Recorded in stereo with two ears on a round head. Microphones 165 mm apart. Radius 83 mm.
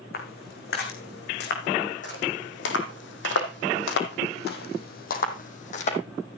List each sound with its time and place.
0.1 s footsteps: 55° left (ahead or behind), 4.5 m; by 6.0 s 40° left (ahead or behind), 3 m